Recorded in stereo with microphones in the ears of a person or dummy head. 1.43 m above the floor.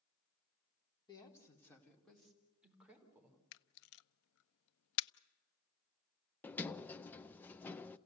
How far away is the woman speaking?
About 3.5 m.